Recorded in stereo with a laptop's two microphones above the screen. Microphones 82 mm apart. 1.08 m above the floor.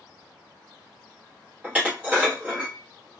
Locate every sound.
1.6 s dishes clattering: 20° right (ahead or behind), 0.9 m